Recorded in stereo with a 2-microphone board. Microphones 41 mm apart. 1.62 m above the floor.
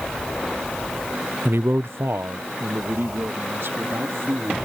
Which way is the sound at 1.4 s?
65° right (ahead or behind).